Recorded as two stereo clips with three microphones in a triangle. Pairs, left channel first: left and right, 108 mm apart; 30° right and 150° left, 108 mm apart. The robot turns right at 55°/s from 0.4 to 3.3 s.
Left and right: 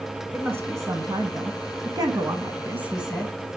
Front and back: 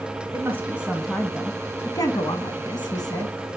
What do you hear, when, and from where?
0.3 s a woman speaking: 155° right, 1.4 m; by 3.6 s 5° left, 1.4 m